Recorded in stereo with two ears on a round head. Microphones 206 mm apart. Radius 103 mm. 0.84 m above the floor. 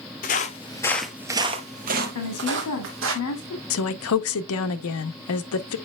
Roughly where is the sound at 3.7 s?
Left.